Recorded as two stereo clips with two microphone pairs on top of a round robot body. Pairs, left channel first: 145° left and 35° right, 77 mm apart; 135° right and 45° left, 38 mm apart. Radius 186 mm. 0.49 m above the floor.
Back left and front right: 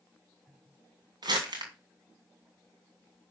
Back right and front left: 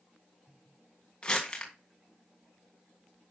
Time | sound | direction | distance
1.2 | crumpling | 65° right | 2.5 m